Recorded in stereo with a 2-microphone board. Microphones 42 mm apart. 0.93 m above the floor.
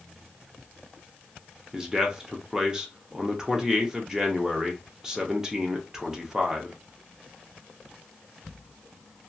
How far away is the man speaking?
About 0.7 m.